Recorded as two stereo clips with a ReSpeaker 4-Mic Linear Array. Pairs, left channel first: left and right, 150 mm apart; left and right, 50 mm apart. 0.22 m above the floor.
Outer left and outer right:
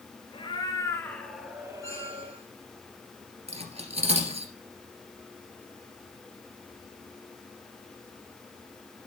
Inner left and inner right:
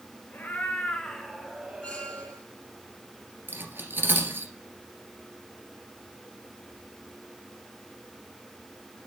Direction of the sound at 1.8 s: 20° left (ahead or behind).